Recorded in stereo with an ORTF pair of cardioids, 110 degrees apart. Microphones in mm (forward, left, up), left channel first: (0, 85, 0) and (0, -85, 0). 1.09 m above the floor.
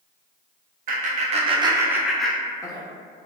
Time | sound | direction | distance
0.9 | laughter | 55° right | 0.8 m